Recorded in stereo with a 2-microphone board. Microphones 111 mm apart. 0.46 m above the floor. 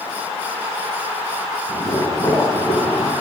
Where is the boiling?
30° left (ahead or behind), 1.7 m.